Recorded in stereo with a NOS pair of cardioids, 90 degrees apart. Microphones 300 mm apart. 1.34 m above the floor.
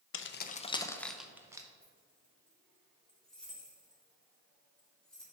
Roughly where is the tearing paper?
No tearing paper in this recording.